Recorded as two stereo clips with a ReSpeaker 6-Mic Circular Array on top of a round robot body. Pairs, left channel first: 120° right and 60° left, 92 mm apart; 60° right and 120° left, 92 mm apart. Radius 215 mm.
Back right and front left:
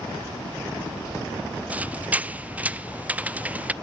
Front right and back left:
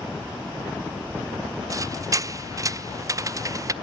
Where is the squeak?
120° left, 0.8 m.